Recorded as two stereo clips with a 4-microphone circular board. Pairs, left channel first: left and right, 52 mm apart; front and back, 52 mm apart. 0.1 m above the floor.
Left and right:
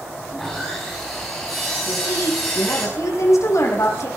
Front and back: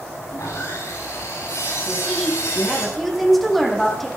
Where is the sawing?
10° left, 7.5 m.